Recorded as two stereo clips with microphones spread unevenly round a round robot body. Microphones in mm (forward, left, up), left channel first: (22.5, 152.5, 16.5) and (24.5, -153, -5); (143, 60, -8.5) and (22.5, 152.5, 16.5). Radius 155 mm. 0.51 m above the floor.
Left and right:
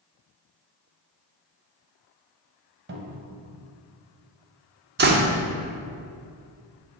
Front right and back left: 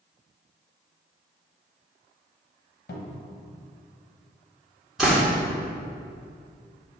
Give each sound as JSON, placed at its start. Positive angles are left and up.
{"t": 2.9, "sound": "a cupboard door", "azimuth_deg": -35, "distance_m": 1.1}
{"t": 5.0, "sound": "a door slam", "azimuth_deg": -120, "distance_m": 0.6}